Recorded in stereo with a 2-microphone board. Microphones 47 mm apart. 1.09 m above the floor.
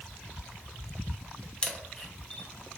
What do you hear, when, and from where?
1.6 s a camera shutter: 20° left (ahead or behind), 0.6 m